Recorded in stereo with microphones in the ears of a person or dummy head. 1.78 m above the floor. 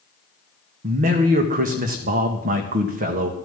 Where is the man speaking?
40° right (ahead or behind), 1.8 m.